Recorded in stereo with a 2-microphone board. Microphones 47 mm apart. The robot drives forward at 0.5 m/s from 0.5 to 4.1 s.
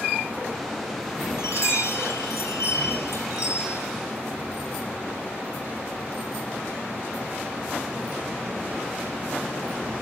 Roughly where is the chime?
Left.